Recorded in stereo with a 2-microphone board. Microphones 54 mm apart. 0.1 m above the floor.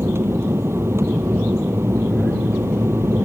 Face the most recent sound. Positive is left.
turn(degrees=-55)  # may be behind; listen again after turning